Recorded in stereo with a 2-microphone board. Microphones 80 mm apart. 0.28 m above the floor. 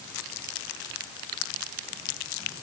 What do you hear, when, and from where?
Only background noise.